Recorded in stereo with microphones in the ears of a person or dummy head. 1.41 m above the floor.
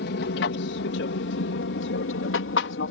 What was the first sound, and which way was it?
An aircraft, 60° left (ahead or behind).